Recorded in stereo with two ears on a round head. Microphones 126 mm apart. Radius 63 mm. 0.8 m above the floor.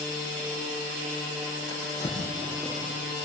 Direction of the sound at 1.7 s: 30° left (ahead or behind).